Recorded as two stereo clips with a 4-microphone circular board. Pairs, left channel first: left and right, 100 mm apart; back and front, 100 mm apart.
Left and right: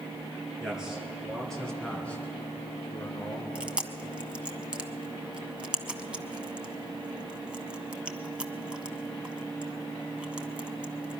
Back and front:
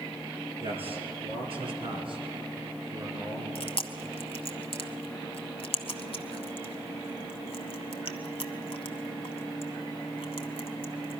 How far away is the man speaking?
About 3.5 m.